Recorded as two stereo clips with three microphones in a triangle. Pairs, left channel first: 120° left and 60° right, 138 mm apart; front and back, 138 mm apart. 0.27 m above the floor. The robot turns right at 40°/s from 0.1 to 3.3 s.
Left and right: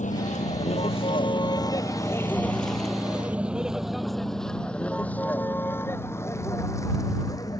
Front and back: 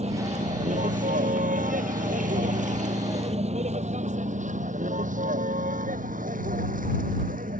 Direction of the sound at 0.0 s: 145° left.